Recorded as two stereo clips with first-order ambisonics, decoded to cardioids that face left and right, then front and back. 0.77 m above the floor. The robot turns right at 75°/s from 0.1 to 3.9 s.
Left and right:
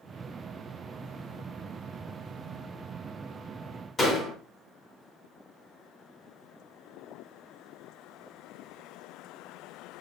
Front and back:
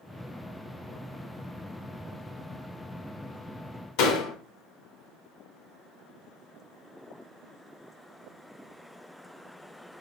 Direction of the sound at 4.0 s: 15° left.